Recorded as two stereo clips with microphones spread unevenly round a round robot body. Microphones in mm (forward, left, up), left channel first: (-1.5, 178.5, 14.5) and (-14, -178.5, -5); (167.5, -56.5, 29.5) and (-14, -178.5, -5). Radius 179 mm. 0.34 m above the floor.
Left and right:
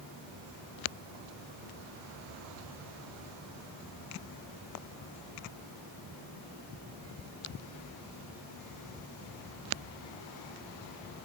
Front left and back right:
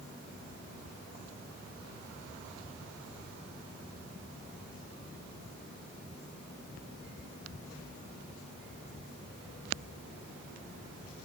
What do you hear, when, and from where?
Only background noise.